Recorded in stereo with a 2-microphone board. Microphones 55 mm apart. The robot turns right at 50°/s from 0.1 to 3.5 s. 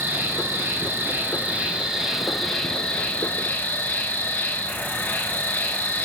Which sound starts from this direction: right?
An insect, at 0.0 s.